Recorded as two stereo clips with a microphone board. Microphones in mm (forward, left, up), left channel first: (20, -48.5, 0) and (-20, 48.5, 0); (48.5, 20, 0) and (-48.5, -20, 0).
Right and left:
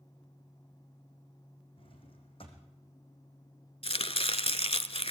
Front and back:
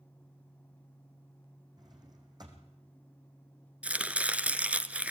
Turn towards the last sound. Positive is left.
turn(degrees=-80)